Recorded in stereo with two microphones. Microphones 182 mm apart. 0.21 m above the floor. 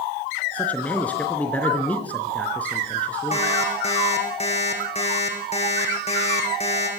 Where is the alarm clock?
35° left (ahead or behind), 6 m.